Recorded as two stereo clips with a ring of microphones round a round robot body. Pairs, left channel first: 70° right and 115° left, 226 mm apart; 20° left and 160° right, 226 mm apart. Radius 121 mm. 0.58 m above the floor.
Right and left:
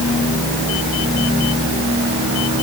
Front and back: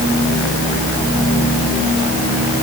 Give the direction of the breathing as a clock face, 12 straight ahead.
I don't hear breathing.